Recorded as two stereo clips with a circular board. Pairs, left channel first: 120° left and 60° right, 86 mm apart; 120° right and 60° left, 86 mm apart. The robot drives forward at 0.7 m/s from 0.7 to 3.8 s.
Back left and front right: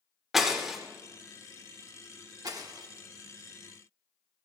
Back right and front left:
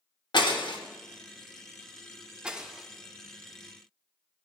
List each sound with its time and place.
0.3 s breaking glass: 145° right, 1.1 m; by 0.8 s 150° right, 1.1 m
2.4 s breaking glass: 20° right, 1.1 m; by 2.9 s 25° right, 0.8 m